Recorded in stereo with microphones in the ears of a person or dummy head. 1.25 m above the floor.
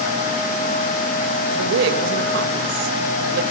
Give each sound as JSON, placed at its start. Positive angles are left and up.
{"t": 1.6, "sound": "a woman speaking", "side_deg": -75, "distance_m": 1.4}